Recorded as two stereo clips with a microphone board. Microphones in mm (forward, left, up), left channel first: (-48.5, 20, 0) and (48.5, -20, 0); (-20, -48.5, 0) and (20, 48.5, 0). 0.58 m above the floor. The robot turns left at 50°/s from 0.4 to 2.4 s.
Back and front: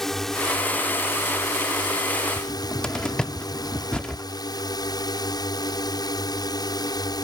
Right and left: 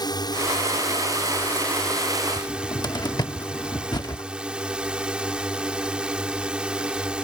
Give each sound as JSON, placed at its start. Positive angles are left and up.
{"t": 0.0, "sound": "a drone", "azimuth_deg": -120}
{"t": 2.4, "sound": "a cupboard door", "azimuth_deg": -125}